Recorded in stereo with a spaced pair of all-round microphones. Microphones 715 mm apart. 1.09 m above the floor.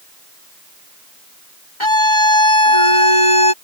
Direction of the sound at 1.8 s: 40° left (ahead or behind).